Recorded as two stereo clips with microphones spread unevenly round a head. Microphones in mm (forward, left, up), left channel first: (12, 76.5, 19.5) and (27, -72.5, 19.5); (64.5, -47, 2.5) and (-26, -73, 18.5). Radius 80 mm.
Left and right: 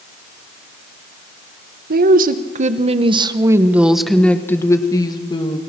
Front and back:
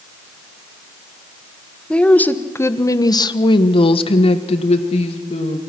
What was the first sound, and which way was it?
A woman speaking, 60° right.